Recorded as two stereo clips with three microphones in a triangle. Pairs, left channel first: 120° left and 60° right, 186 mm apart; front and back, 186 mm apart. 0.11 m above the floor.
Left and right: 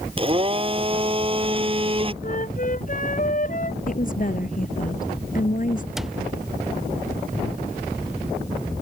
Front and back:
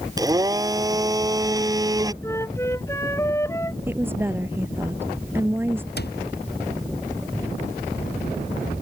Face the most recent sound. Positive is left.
turn(degrees=30)